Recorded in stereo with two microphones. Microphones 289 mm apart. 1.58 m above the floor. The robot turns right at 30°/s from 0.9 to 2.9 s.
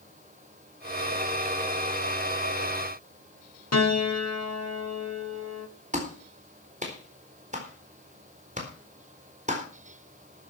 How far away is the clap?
About 4 m.